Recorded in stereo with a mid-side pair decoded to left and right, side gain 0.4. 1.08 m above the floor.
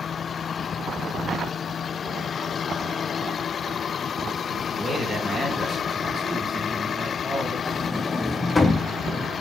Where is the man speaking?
20° right, 2.5 m.